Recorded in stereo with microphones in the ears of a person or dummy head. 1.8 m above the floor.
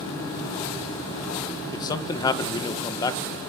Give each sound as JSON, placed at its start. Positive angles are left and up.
{"t": 1.7, "sound": "a man speaking", "side_deg": 25, "distance_m": 1.6}